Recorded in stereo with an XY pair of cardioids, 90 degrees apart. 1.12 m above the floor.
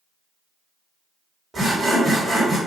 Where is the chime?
No chime in this recording.